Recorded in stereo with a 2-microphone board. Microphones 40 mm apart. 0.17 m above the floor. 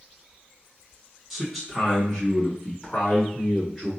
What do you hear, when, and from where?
1.3 s a man speaking: 10° right (ahead or behind), 1.8 m; by 3.9 s 5° left (ahead or behind), 1.7 m